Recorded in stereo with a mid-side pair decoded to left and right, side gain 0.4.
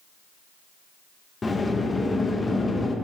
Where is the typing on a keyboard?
No typing on a keyboard in this recording.